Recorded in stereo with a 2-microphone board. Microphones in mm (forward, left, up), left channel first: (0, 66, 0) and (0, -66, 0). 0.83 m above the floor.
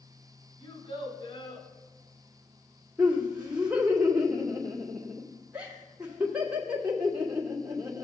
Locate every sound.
0.6 s a child speaking: 75° left (ahead or behind), 4 m
3.0 s laughter: 10° right (ahead or behind), 2.5 m